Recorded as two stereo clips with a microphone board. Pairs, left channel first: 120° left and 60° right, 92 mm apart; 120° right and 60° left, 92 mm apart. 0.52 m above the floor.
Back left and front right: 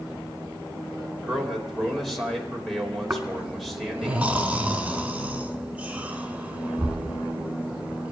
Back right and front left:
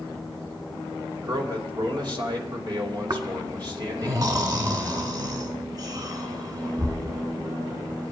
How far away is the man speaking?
About 2 m.